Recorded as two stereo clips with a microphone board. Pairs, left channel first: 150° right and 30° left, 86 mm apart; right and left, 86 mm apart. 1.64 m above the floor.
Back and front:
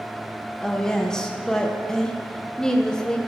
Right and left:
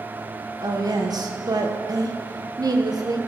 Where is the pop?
I don't hear a pop.